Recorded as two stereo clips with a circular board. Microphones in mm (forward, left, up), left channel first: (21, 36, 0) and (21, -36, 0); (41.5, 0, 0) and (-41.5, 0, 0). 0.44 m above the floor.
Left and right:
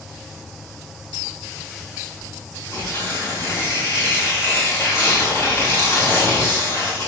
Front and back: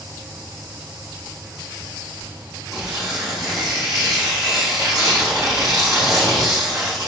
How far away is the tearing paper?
About 3.5 m.